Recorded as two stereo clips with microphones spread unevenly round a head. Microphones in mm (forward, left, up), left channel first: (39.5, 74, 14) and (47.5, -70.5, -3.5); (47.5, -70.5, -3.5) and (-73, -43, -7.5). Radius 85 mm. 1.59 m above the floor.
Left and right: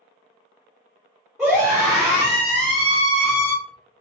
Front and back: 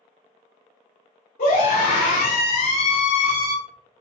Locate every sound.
1.4 s a scream: straight ahead, 2 m